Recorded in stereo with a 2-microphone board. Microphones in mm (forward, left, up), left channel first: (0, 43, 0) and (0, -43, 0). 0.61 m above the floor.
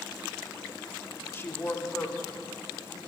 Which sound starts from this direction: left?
A woman speaking, at 1.3 s.